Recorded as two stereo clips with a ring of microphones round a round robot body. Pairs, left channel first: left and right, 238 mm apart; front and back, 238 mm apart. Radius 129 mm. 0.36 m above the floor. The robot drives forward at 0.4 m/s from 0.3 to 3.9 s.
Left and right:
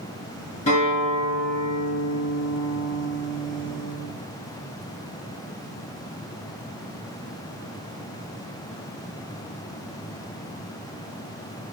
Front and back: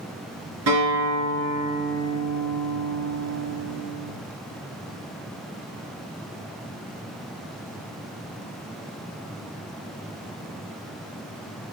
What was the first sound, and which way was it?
A guitar, 160° left.